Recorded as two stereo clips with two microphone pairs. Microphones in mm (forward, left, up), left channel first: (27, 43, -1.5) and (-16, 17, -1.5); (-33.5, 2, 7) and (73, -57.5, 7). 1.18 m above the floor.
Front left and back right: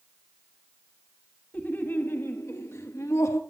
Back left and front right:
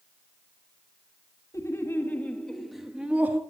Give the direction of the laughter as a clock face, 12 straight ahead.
9 o'clock.